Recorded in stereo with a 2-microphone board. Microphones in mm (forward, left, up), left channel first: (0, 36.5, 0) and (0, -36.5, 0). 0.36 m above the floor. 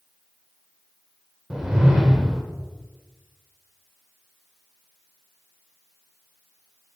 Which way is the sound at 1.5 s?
10° right (ahead or behind).